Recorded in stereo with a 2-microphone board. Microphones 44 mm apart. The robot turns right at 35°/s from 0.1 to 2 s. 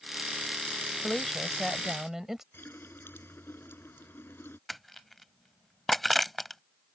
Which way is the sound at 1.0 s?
155° left.